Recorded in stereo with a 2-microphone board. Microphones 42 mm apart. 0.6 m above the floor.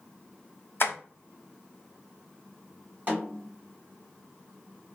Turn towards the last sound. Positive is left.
turn(degrees=-40)  # may be behind; listen again after turning